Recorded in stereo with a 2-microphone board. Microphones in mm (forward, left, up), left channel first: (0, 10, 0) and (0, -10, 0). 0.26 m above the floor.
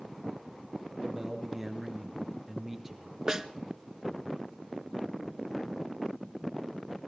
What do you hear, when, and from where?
1.0 s a man speaking: 15° right (ahead or behind), 4 m
3.3 s a snare drum: 25° right (ahead or behind), 1.0 m